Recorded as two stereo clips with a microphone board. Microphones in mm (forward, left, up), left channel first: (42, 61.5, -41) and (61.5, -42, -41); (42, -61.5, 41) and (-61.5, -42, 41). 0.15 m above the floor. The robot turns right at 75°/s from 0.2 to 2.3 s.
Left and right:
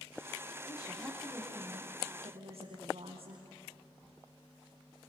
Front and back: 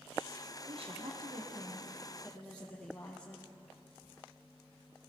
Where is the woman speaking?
145° left, 5.5 m; by 3.5 s 95° right, 5.5 m.